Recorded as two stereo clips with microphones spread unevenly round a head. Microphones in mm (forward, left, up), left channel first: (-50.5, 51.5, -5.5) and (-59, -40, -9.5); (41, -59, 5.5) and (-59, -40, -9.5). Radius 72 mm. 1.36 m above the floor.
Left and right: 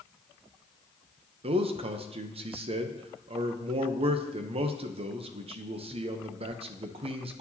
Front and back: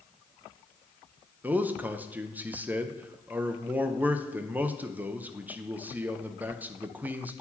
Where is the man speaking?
110° right, 0.7 m.